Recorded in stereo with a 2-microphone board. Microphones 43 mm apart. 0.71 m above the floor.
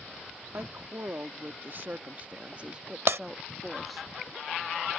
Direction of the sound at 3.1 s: 60° right (ahead or behind).